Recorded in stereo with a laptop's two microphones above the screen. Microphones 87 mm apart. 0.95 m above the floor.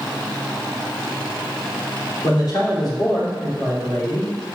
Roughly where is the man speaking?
Left.